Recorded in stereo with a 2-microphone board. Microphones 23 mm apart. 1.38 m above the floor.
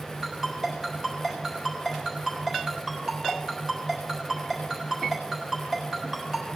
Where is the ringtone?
35° right (ahead or behind), 4 m.